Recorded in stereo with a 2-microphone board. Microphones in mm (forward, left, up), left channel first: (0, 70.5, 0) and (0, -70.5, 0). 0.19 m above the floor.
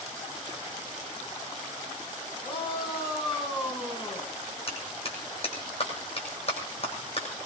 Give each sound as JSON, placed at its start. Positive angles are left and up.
{"t": 2.4, "sound": "a shout", "side_deg": 40, "distance_m": 7.0}
{"t": 4.7, "sound": "a clap", "side_deg": 45, "distance_m": 8.0}